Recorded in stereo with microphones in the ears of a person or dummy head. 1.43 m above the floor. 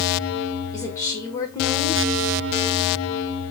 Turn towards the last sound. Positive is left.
turn(degrees=15)  # may be behind; listen again after turning